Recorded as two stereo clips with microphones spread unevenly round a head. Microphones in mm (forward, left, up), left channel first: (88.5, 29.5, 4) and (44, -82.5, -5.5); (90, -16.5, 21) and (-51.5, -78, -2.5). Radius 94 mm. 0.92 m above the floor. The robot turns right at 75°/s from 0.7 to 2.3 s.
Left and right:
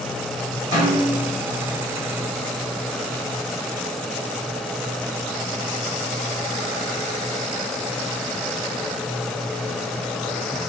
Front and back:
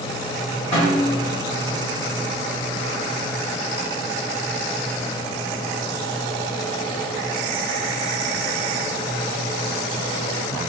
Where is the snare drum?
90° left, 1.5 m; by 1.3 s 130° left, 1.5 m.